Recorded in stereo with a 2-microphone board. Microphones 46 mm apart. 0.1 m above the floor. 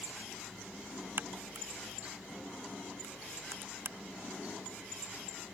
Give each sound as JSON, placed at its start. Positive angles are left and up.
{"t": 1.2, "sound": "a crack", "side_deg": -50}